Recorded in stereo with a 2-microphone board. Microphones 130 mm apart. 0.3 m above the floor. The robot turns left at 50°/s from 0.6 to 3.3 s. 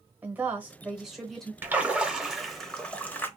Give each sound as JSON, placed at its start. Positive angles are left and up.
{"t": 0.2, "sound": "a woman speaking", "side_deg": -10, "distance_m": 0.9}
{"t": 1.6, "sound": "a splash", "side_deg": -15, "distance_m": 0.7}